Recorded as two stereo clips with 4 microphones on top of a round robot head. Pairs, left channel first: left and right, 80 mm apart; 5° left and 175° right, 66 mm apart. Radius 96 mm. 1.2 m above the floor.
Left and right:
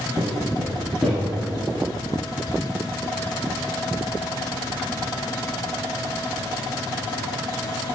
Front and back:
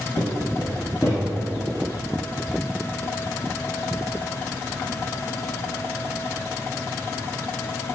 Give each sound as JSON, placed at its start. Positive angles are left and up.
{"t": 0.2, "sound": "footsteps", "azimuth_deg": -5, "distance_m": 2.0}